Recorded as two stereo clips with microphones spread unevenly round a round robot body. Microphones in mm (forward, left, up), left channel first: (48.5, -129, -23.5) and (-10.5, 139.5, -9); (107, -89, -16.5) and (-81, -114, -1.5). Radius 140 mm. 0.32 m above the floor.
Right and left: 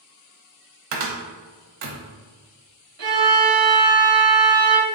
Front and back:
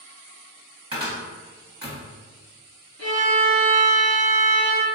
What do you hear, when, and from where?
0.9 s a cupboard door: 115° left, 0.6 m
3.0 s a violin: 125° left, 0.7 m